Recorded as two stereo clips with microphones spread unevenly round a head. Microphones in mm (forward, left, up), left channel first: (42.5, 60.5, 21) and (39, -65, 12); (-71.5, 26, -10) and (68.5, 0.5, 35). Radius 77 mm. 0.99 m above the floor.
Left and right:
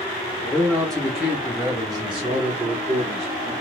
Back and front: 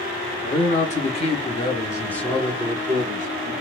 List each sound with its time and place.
0.4 s a man speaking: 170° left, 1.4 m; by 3.5 s 75° right, 1.3 m